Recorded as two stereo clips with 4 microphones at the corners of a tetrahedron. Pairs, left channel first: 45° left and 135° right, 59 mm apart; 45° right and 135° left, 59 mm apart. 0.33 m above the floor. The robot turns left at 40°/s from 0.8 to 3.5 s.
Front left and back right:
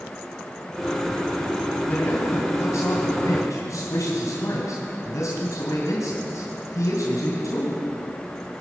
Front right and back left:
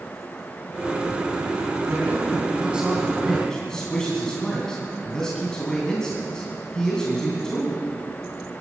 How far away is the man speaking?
About 2.5 m.